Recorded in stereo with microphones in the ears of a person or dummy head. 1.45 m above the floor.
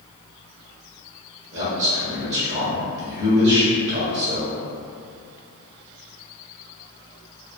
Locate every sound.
1.5 s a man speaking: 70° right (ahead or behind), 1.6 m